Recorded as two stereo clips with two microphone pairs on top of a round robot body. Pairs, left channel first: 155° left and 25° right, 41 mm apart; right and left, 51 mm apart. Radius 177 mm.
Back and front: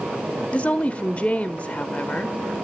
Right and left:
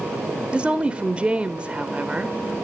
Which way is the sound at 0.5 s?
120° left.